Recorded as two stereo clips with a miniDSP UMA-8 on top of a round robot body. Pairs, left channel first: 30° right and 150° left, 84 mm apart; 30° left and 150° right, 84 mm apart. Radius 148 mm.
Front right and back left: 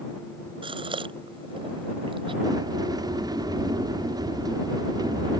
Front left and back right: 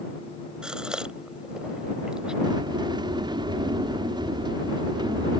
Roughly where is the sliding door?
Behind.